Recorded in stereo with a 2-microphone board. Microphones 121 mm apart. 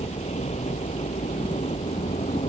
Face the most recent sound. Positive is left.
turn(degrees=65)  # may be behind; listen again after turning